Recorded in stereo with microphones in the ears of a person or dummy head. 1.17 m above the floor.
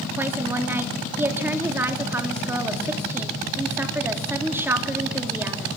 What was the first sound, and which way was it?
A woman speaking, 10° right (ahead or behind).